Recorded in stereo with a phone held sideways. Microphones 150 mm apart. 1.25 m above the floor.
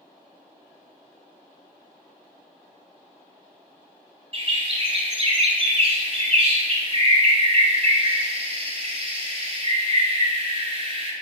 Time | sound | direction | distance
4.3 | a bird | 40° right (ahead or behind) | 0.8 m